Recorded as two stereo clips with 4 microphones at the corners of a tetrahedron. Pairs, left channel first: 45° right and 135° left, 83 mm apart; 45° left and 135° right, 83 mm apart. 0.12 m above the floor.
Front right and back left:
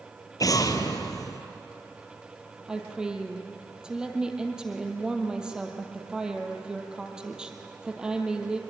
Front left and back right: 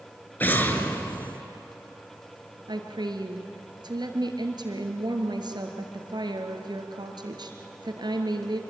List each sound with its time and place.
0.4 s an explosion: 15° right, 1.5 m
2.7 s a woman speaking: 145° right, 2.5 m